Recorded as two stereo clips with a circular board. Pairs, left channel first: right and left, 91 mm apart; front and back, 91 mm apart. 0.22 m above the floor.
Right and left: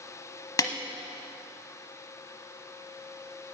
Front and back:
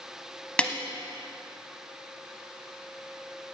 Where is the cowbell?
No cowbell in this recording.